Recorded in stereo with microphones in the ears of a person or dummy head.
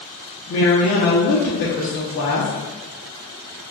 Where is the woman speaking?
50° left (ahead or behind), 0.9 m.